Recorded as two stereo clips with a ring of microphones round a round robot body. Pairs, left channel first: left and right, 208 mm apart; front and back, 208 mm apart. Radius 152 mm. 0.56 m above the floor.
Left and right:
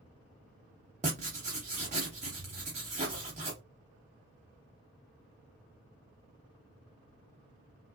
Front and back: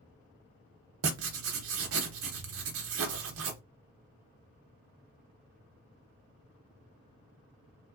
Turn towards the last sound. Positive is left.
turn(degrees=-155)